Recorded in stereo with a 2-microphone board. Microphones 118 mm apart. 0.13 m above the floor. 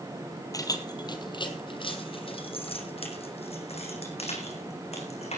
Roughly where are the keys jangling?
Left.